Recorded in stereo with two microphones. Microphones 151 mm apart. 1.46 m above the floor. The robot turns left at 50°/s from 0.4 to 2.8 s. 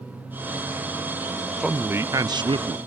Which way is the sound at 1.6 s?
5° right.